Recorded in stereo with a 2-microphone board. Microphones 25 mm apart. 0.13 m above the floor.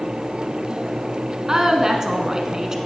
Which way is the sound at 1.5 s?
25° right (ahead or behind).